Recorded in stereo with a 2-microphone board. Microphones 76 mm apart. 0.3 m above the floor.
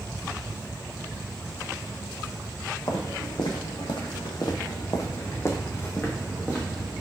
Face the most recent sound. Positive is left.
turn(degrees=10)  # may be behind; listen again after turning